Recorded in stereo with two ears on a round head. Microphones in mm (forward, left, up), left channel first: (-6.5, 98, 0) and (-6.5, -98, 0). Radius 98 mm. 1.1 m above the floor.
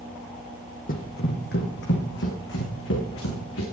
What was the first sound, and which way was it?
Running footsteps, 40° left (ahead or behind).